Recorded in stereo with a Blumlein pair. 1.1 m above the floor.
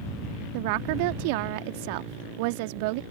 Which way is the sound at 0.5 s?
45° right.